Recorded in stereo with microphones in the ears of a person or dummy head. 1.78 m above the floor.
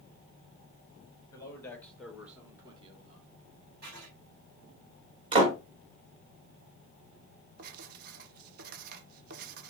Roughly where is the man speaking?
Left.